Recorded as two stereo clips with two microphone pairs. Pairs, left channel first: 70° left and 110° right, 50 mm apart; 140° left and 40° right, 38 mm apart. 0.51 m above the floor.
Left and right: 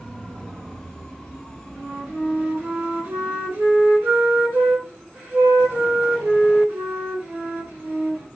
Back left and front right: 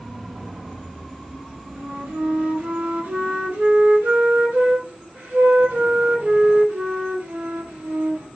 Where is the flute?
60° right, 2.5 m.